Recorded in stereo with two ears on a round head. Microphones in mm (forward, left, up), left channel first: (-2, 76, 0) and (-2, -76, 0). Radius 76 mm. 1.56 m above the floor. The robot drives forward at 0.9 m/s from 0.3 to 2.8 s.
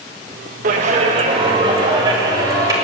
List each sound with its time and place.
0.6 s a clap: 50° right (ahead or behind), 1.5 m; by 2.7 s 20° right (ahead or behind), 3 m